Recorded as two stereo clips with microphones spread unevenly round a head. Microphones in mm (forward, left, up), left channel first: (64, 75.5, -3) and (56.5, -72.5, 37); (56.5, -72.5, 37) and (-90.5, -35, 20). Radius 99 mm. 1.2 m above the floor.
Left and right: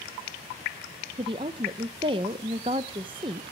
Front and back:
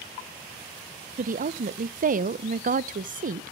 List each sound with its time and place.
1.2 s a woman speaking: 160° right, 0.7 m